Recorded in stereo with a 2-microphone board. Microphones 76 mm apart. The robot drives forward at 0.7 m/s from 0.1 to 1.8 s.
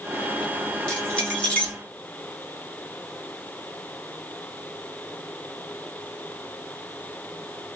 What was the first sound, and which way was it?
Keys jangling, 15° left (ahead or behind).